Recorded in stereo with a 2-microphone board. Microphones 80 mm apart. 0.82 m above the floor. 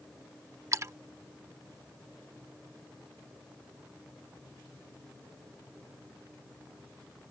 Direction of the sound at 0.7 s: 40° right (ahead or behind).